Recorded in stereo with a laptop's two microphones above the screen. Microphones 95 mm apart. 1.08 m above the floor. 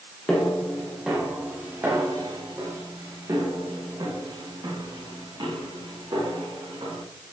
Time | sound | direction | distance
0.3 | footsteps | 10° left (ahead or behind) | 1.6 m